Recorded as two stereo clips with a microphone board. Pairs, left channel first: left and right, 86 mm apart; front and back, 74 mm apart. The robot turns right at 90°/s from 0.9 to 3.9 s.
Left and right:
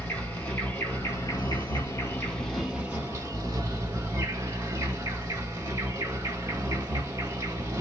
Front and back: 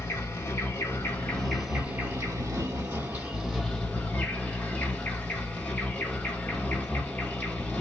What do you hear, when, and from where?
0.0 s an insect: 25° left, 2 m; by 7.8 s 65° right, 2 m